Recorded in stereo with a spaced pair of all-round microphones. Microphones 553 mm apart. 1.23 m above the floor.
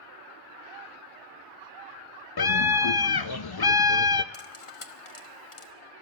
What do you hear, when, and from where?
2.4 s a scream: 45° left (ahead or behind), 0.6 m
4.3 s cutlery clinking: 65° left (ahead or behind), 1.0 m